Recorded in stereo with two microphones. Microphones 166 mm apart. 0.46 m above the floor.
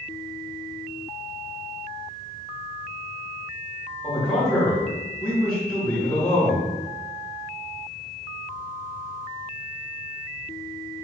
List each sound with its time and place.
4.0 s a man speaking: 5° left (ahead or behind), 1.9 m